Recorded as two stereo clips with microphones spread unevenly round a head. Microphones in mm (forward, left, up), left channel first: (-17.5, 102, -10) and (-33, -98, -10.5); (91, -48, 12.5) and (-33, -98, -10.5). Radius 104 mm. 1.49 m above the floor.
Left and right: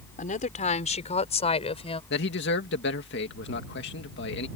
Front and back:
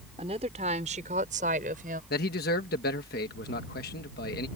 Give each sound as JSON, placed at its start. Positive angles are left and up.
{"t": 0.2, "sound": "a woman speaking", "azimuth_deg": 140}
{"t": 2.1, "sound": "a man speaking", "azimuth_deg": 45}